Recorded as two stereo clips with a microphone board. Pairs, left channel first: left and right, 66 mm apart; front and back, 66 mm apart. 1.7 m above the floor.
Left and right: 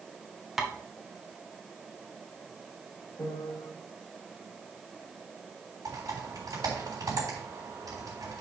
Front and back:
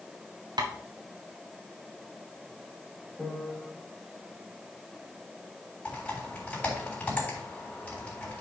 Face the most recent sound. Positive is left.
turn(degrees=-70)